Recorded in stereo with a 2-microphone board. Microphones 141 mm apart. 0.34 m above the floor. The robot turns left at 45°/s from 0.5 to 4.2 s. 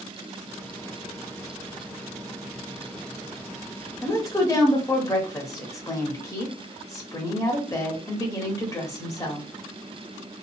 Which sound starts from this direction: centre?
A woman speaking, at 4.0 s.